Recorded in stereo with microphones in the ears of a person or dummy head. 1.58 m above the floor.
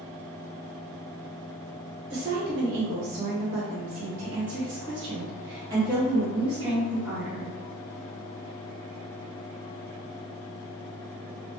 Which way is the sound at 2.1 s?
65° right (ahead or behind).